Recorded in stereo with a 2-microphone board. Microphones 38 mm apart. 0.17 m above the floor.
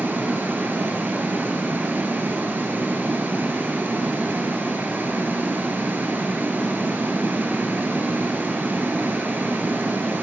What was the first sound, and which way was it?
Running water, 65° right (ahead or behind).